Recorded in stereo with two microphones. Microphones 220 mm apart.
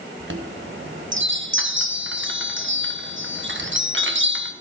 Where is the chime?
65° right (ahead or behind), 1.1 m.